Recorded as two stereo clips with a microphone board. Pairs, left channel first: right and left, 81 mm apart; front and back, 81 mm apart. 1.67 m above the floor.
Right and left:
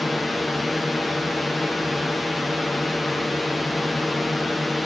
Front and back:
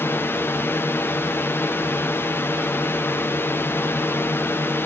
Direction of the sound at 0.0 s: Straight ahead.